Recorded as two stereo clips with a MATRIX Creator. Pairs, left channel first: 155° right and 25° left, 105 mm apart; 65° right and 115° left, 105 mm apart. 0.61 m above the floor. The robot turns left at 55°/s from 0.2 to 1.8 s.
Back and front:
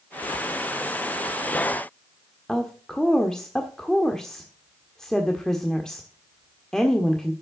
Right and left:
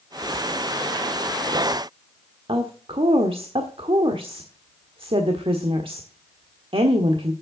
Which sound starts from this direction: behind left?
A woman speaking, at 2.5 s.